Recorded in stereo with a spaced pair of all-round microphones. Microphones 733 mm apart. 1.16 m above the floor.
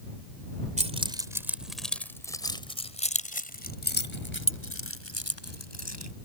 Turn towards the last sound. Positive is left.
turn(degrees=20)  # may be behind; listen again after turning